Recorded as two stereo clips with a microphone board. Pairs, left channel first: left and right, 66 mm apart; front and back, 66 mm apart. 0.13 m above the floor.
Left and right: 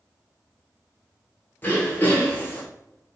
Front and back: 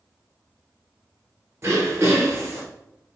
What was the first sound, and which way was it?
Throat clearing, 145° left.